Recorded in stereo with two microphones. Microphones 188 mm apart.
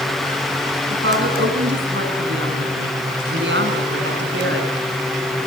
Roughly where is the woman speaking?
Right.